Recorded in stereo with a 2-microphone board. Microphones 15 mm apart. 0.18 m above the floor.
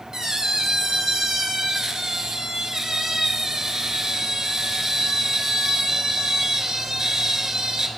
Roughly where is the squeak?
Right.